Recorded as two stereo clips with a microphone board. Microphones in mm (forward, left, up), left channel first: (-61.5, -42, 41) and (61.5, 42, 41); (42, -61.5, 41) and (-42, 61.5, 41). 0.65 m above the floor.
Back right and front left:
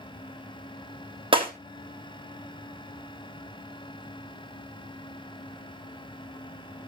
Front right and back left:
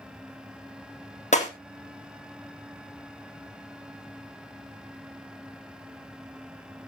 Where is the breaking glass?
20° right, 3 m.